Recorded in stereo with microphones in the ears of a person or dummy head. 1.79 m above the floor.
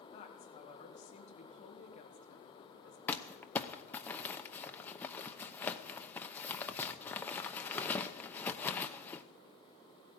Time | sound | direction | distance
0.1 | a woman speaking | 40° left (ahead or behind) | 1.7 m
3.1 | crumpling | 10° left (ahead or behind) | 0.8 m